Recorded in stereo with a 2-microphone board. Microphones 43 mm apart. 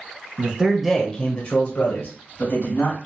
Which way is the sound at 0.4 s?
35° right (ahead or behind).